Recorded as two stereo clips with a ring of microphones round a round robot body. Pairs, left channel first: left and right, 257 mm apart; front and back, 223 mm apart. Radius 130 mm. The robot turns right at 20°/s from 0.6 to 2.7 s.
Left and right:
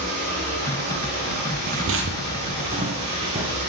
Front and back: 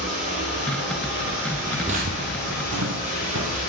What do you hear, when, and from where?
0.0 s running water: 115° right, 4.5 m; by 3.7 s 75° right, 4.5 m
1.7 s footsteps: 90° right, 0.6 m; by 3.6 s 160° right, 2.5 m